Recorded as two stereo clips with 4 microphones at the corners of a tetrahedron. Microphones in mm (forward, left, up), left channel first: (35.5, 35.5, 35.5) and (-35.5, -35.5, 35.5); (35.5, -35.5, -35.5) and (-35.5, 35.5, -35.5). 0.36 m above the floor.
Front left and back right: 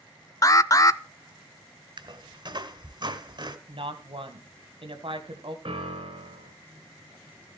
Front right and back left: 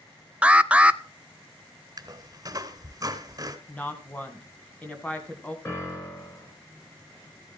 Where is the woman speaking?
115° right, 3 m.